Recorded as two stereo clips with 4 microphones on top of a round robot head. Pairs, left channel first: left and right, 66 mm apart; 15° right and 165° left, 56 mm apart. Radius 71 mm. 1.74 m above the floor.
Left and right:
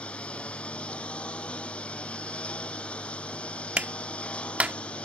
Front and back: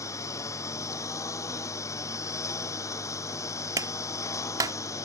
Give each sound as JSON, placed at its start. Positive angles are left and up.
{"t": 0.0, "sound": "a lawn mower", "azimuth_deg": 15}
{"t": 3.8, "sound": "a clap", "azimuth_deg": -160}